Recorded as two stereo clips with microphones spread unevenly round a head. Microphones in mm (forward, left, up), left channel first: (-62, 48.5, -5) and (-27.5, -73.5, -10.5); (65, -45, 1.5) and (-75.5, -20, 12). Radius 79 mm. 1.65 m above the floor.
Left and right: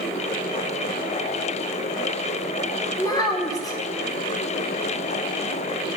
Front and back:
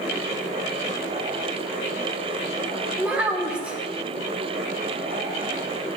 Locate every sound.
3.0 s a child speaking: 100° left, 0.7 m